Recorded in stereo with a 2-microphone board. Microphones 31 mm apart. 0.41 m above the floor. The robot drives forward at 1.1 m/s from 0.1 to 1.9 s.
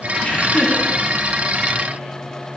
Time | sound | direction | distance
0.2 | laughter | 45° left (ahead or behind) | 5 m